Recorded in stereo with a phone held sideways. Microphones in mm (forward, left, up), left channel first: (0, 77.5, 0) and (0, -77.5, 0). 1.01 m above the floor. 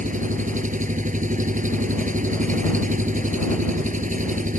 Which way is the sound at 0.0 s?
55° right (ahead or behind).